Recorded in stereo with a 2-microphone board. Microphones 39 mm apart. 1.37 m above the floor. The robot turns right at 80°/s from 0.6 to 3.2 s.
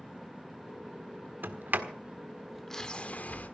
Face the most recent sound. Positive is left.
turn(degrees=45)  # may be behind; listen again after turning